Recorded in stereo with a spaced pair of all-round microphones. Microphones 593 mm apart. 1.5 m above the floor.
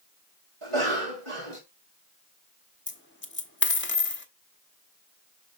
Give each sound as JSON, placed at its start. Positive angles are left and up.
{"t": 0.6, "sound": "a cough", "side_deg": -55, "distance_m": 4.0}
{"t": 2.9, "sound": "a dropped coin", "side_deg": 20, "distance_m": 1.0}